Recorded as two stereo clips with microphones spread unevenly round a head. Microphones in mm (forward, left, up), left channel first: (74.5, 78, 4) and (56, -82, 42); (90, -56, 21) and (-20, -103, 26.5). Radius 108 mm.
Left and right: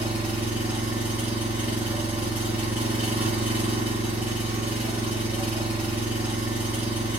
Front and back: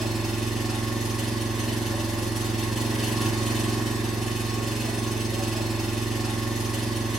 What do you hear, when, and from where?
0.0 s an engine running: 80° right, 1.2 m